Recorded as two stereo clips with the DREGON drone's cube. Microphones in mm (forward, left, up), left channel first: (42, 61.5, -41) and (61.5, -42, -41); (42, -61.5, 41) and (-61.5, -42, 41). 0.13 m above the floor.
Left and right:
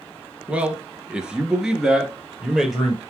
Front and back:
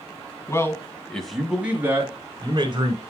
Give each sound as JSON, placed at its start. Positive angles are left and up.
{"t": 0.5, "sound": "a man speaking", "azimuth_deg": -15, "distance_m": 1.2}